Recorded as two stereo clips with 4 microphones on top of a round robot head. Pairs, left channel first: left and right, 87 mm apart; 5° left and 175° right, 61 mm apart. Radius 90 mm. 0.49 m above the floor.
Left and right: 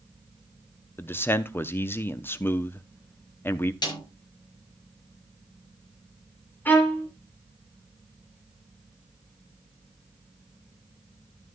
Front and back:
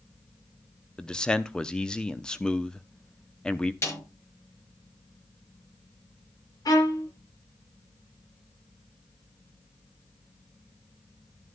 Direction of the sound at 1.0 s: 65° left.